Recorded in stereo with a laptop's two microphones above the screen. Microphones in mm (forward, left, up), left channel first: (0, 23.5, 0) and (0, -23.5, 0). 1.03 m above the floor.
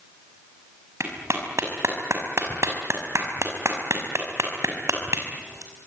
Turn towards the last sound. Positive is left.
turn(degrees=-90)